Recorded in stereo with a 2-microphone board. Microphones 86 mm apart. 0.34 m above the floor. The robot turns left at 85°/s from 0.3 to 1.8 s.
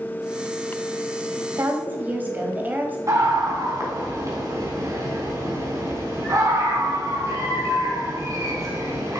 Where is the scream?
40° right (ahead or behind), 3.5 m.